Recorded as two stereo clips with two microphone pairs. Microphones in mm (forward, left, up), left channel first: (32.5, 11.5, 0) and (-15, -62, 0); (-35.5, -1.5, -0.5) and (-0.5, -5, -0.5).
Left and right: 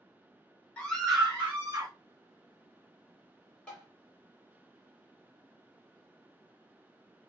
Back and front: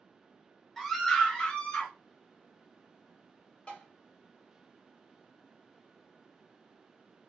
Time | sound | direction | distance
0.8 | a scream | 105° left | 1.0 m
3.7 | tapping | 130° left | 1.8 m